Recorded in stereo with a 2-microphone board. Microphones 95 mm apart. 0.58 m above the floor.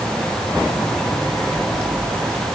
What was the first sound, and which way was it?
Only background noise.